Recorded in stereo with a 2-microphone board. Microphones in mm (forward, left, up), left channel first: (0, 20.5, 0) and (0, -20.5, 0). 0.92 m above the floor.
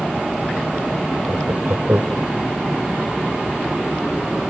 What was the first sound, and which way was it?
Laughter, 65° right (ahead or behind).